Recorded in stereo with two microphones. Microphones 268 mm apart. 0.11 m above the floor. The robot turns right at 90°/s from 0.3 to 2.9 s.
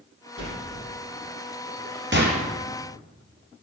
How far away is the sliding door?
About 3 m.